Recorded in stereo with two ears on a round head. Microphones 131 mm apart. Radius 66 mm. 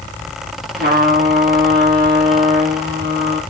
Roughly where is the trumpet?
Right.